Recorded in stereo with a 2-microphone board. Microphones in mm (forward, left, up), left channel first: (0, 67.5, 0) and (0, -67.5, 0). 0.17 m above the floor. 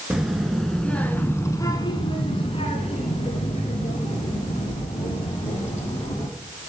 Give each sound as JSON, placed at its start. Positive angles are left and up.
{"t": 0.1, "sound": "a child speaking", "side_deg": -5, "distance_m": 1.8}